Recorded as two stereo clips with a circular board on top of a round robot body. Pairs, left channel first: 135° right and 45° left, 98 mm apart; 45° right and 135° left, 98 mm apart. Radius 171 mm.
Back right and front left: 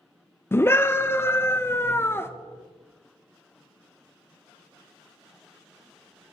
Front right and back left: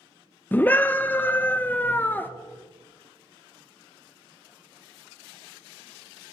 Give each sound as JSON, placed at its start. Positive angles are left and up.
{"t": 0.5, "sound": "a scream", "azimuth_deg": -95, "distance_m": 0.6}